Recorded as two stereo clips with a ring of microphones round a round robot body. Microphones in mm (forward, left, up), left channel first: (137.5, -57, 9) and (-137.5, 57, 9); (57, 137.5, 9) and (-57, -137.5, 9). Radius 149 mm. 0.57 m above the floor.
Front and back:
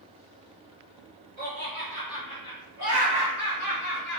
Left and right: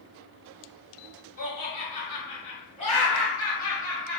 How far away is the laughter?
About 1.7 m.